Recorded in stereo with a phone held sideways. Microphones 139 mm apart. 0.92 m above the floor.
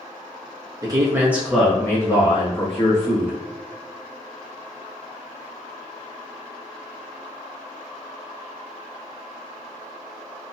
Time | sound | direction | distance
0.8 | a man speaking | 25° right (ahead or behind) | 0.9 m